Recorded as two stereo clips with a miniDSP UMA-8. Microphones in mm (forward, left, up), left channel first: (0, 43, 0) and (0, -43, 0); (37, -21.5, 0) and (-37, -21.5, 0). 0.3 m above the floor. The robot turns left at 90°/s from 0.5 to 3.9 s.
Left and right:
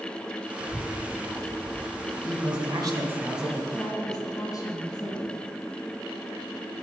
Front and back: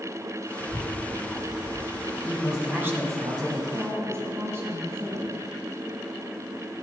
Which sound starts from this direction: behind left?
A woman speaking, at 3.7 s.